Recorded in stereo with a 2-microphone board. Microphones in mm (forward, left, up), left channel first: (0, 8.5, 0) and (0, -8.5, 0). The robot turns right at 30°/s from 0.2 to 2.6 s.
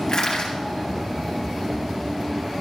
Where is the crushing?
45° left (ahead or behind), 3 m; by 0.6 s 55° left (ahead or behind), 3 m.